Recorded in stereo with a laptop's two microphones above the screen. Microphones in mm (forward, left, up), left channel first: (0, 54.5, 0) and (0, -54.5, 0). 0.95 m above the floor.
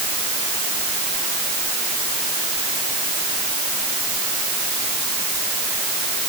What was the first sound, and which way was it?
Only background noise.